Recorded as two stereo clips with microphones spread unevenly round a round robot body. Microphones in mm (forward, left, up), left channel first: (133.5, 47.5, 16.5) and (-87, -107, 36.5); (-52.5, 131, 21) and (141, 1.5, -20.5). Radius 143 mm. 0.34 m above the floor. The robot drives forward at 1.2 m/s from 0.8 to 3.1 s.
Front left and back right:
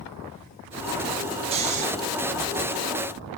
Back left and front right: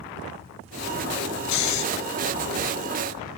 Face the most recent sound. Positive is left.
turn(degrees=160)